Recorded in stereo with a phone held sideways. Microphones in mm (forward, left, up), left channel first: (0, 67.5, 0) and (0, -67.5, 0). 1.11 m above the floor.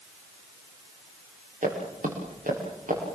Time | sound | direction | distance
1.6 | footsteps | 70° right (ahead or behind) | 7 m